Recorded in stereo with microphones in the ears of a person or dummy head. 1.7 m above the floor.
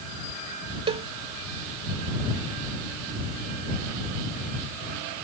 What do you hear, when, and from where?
0.9 s a cowbell: 30° right (ahead or behind)